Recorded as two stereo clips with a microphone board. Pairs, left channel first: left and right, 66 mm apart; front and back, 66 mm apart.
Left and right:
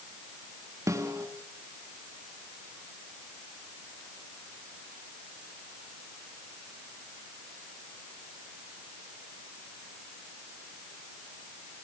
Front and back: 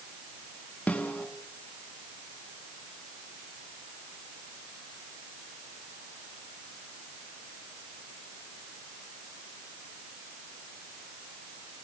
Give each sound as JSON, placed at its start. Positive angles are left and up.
{"t": 0.9, "sound": "a snare drum", "azimuth_deg": -65, "distance_m": 3.5}